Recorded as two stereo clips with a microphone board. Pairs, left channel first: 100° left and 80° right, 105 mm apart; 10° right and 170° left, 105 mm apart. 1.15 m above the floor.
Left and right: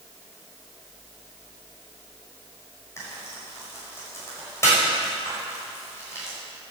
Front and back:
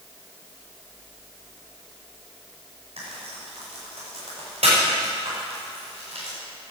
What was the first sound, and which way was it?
Frying, 165° left.